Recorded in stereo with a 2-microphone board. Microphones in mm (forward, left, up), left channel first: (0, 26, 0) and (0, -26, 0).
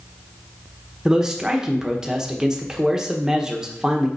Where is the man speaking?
15° right (ahead or behind), 1.2 m.